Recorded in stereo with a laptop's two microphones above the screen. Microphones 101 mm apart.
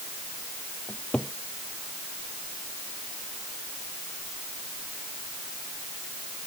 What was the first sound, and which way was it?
A cupboard door, 10° left (ahead or behind).